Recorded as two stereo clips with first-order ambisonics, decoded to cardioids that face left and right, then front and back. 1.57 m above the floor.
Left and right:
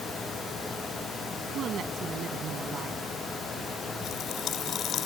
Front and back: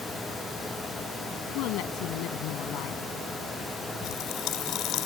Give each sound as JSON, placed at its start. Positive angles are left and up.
{"t": 1.6, "sound": "a woman speaking", "azimuth_deg": -30}
{"t": 4.0, "sound": "a pop", "azimuth_deg": 35}